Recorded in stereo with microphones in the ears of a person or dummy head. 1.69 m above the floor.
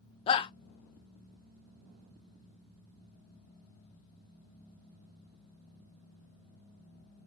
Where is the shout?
30° left (ahead or behind), 0.5 m.